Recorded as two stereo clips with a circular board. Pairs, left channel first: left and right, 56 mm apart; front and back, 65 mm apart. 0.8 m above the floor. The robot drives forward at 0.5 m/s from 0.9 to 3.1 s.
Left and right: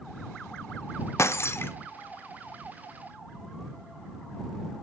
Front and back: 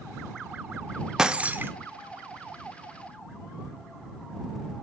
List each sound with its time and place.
1.2 s breaking glass: 100° left, 0.5 m; by 1.7 s 130° left, 0.6 m